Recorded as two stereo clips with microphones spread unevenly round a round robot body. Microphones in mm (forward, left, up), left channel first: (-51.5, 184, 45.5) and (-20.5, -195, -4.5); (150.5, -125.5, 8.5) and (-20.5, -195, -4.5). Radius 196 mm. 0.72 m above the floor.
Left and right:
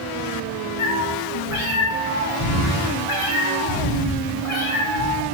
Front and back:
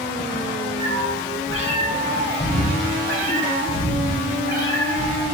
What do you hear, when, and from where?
0.8 s a cat meowing: 85° left, 7 m; by 5.2 s 105° left, 6 m